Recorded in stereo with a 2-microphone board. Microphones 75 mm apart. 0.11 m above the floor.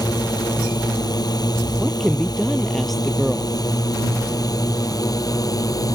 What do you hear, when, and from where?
0.0 s a drone: 65° left (ahead or behind); by 5.9 s 55° left (ahead or behind)
1.8 s a woman speaking: centre (ahead or behind)